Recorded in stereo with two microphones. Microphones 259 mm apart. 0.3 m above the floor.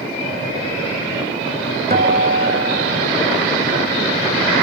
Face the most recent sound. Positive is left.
turn(degrees=-35)  # may be behind; listen again after turning